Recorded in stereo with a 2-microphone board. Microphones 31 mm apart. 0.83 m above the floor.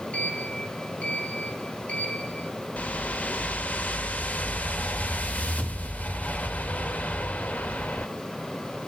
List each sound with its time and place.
0.1 s a sliding door: 40° left (ahead or behind), 2.0 m
2.8 s a whoosh: 55° left (ahead or behind), 1.4 m